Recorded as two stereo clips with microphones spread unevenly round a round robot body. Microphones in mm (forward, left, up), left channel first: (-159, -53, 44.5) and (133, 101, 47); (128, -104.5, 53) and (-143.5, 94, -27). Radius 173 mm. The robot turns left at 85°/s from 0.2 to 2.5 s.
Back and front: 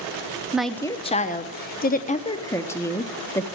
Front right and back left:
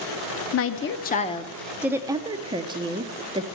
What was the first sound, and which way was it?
A woman speaking, 55° right.